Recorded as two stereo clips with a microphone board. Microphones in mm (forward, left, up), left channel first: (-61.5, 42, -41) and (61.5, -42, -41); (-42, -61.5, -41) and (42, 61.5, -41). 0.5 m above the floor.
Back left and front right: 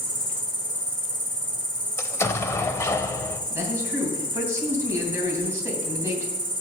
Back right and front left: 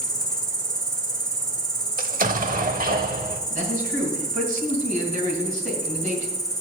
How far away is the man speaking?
About 2.5 m.